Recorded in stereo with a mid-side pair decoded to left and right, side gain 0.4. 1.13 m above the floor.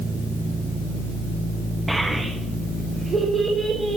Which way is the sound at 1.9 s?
15° right.